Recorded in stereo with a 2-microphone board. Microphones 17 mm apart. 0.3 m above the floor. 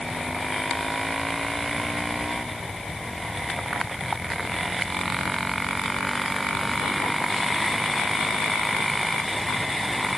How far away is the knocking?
I don't hear knocking.